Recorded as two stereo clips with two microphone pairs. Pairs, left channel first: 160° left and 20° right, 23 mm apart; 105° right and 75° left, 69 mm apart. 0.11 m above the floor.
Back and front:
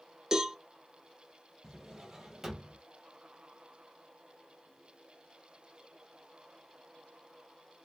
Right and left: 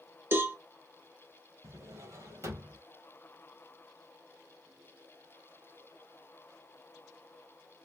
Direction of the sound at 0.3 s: 30° left.